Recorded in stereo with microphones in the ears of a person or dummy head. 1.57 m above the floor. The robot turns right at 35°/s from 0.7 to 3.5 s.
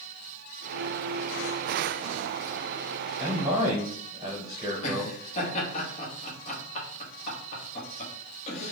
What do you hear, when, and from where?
3.2 s a man speaking: 5° right (ahead or behind), 0.8 m; by 5.2 s 15° right (ahead or behind), 0.8 m
4.8 s laughter: 40° left (ahead or behind), 1.1 m